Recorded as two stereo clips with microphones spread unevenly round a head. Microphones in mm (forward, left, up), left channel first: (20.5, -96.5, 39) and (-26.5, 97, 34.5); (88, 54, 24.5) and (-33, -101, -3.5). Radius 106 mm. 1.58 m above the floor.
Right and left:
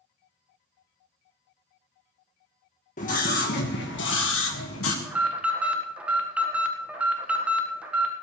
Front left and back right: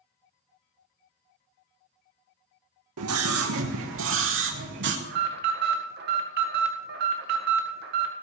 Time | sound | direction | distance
3.0 | a scream | 130° right | 1.4 m
5.0 | an alarm | 170° right | 1.6 m